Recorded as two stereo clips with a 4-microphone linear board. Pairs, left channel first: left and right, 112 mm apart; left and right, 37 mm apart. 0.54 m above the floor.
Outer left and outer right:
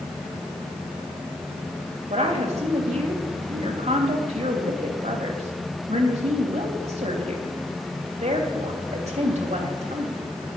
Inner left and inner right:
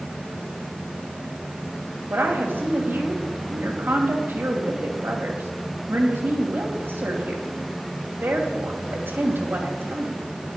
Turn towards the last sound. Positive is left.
turn(degrees=-70)  # may be behind; listen again after turning